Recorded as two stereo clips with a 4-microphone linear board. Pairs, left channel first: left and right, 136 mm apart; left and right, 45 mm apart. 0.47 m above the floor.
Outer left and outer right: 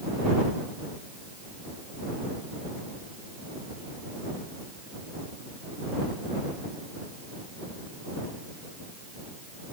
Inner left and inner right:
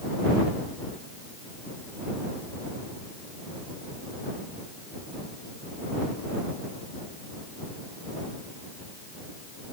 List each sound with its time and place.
Only background noise.